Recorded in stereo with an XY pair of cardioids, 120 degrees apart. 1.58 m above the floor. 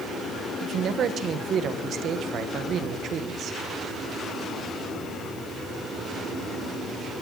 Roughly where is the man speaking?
Ahead right.